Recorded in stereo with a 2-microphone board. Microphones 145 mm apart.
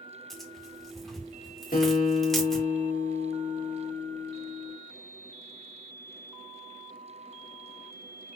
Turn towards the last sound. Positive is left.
turn(degrees=85)